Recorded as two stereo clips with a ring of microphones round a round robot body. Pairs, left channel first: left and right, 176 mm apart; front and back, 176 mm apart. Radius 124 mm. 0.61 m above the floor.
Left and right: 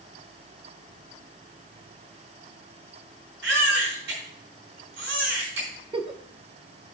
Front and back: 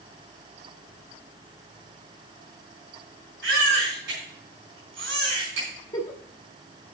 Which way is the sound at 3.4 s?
135° right.